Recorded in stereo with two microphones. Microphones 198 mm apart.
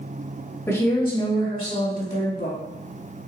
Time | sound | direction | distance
0.7 | a woman speaking | 15° left (ahead or behind) | 1.6 m